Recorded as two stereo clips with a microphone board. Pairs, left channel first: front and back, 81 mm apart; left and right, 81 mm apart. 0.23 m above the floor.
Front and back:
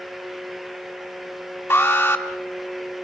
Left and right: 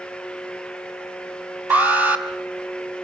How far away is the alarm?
About 1.8 m.